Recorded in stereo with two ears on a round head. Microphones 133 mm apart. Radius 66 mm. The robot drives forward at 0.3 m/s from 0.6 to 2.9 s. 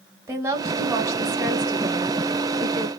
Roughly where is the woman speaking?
Right.